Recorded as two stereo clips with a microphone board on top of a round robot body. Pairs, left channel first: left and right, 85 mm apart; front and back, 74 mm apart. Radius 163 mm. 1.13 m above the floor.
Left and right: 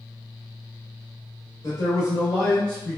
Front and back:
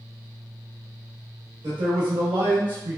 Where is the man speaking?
140° left, 1.1 m; by 3.0 s straight behind, 0.7 m.